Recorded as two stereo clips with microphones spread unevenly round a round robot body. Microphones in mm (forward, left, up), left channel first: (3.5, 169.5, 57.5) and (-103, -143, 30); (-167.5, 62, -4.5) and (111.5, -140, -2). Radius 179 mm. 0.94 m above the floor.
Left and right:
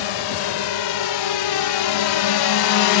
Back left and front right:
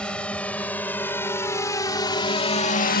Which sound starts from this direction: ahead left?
A drone, at 0.0 s.